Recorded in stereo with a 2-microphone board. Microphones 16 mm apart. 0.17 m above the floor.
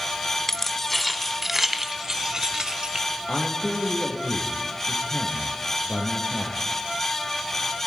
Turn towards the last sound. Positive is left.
turn(degrees=65)  # may be behind; listen again after turning